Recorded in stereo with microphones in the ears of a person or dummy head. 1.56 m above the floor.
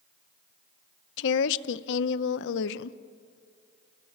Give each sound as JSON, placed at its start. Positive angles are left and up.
{"t": 1.2, "sound": "a woman speaking", "side_deg": 75, "distance_m": 0.7}